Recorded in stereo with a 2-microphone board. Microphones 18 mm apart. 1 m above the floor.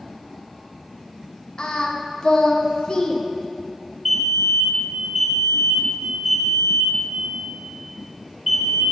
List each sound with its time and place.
1.6 s singing: 50° left (ahead or behind), 0.9 m
4.0 s a fire alarm: 5° right (ahead or behind), 3.5 m